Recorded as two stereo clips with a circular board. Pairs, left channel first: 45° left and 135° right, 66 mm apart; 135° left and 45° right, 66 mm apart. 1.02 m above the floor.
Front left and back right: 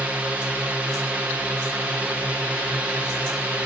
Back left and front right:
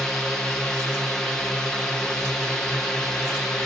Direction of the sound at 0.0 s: 160° right.